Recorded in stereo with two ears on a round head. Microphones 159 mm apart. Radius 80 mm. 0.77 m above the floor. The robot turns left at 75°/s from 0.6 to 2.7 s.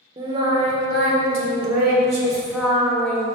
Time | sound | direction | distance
0.2 | singing | 30° right | 1.5 m